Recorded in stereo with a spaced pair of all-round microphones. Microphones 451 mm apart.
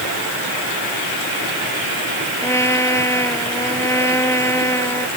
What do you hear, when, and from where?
2.4 s a trumpet: 5° left (ahead or behind)